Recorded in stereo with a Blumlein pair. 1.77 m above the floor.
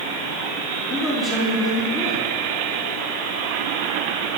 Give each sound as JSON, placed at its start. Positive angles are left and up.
{"t": 0.9, "sound": "a man speaking", "azimuth_deg": 30, "distance_m": 4.0}